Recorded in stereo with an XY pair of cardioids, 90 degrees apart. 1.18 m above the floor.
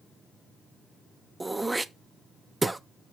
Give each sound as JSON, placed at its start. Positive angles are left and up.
{"t": 1.4, "sound": "throat clearing", "azimuth_deg": -20, "distance_m": 0.5}